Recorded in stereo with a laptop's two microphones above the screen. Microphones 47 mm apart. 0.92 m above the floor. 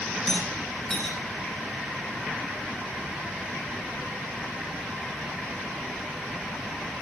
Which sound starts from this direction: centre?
A rattle, at 0.3 s.